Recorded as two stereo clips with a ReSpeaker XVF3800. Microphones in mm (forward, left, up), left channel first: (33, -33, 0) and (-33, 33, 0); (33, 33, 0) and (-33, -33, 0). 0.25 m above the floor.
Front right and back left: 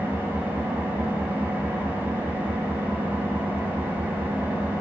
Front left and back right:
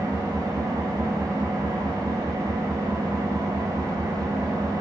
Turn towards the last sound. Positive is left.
turn(degrees=-165)